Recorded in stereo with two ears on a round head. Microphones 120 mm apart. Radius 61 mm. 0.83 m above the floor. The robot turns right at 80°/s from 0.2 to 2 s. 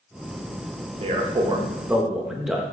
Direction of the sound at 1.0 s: 85° right.